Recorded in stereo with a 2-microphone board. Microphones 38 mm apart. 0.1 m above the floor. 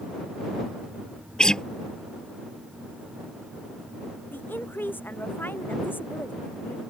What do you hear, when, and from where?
1.4 s a guitar: 20° left (ahead or behind)
4.3 s a woman speaking: 65° left (ahead or behind)